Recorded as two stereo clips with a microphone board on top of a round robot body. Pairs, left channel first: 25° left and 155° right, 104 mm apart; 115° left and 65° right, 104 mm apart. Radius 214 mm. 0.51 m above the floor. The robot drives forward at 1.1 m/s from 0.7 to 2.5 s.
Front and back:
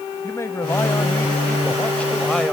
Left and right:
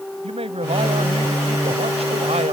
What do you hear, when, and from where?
0.2 s a man speaking: 45° right; by 2.5 s 60° right